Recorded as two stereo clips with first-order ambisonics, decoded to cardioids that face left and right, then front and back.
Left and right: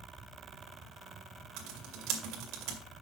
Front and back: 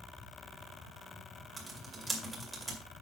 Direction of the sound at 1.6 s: 105° right.